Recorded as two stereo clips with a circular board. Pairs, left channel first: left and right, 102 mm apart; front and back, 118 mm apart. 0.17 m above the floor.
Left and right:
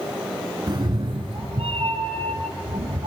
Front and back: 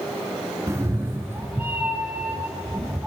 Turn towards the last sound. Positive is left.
turn(degrees=-105)